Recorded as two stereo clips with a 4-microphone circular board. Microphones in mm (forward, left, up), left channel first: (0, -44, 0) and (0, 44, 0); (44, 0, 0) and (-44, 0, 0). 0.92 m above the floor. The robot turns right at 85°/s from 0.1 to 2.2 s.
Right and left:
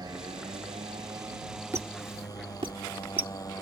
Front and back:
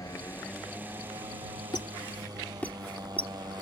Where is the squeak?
30° left; by 3.6 s 70° left.